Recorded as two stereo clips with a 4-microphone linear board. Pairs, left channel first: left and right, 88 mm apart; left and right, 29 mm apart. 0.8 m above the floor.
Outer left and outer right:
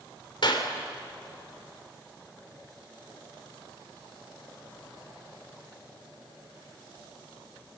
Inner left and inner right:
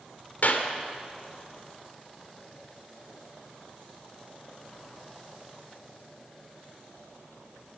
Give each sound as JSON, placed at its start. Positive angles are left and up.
{"t": 0.4, "sound": "a clap", "side_deg": 65, "distance_m": 2.5}